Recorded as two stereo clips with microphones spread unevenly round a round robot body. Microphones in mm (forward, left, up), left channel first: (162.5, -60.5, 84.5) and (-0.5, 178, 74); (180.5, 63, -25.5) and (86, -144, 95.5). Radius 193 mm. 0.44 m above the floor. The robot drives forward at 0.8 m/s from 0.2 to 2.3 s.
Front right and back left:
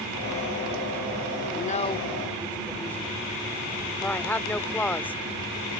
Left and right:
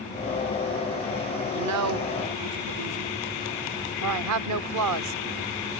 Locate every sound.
1.5 s a woman speaking: 100° right; by 5.2 s 140° right